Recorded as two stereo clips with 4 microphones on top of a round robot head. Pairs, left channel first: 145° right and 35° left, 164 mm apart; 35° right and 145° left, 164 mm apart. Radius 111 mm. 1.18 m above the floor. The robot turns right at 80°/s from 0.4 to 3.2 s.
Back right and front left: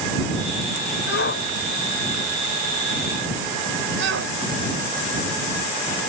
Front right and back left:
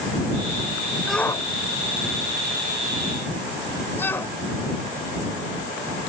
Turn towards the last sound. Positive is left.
turn(degrees=40)